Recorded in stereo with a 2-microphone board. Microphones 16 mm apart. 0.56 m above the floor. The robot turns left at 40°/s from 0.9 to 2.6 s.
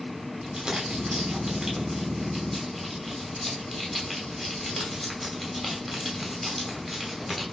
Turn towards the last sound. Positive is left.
turn(degrees=175)